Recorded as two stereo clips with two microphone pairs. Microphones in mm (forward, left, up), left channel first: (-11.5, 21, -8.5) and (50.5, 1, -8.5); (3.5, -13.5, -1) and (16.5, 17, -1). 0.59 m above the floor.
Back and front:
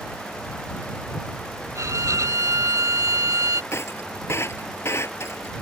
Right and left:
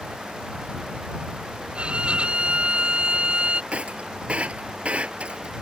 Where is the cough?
No cough in this recording.